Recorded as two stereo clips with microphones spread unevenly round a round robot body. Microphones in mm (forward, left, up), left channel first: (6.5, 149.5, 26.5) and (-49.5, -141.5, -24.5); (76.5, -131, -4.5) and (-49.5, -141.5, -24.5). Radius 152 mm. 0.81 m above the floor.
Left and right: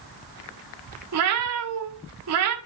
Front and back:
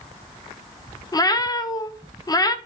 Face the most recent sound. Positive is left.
turn(degrees=-60)